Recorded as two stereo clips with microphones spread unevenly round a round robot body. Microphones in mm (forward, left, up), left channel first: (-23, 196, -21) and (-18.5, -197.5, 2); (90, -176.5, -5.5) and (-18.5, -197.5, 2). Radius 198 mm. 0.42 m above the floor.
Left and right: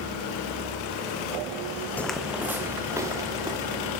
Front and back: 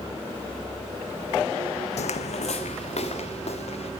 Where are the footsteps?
5° left, 1.1 m; by 3.9 s 10° right, 4 m.